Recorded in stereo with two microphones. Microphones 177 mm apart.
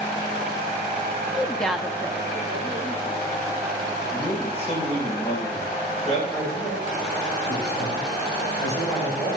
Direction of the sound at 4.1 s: 35° left (ahead or behind).